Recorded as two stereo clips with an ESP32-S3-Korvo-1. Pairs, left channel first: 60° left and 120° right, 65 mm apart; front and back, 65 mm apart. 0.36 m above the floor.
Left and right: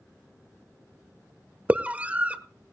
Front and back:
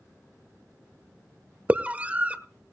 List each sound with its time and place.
1.7 s a scream: 150° right, 1.0 m